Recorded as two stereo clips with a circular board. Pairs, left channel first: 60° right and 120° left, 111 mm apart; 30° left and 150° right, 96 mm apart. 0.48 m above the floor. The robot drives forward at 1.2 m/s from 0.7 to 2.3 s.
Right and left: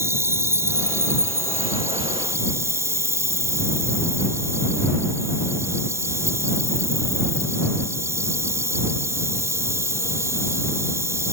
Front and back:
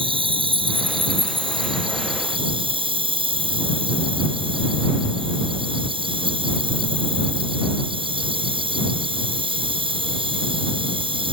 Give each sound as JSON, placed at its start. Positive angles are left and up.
{"t": 0.0, "sound": "an insect", "azimuth_deg": -175}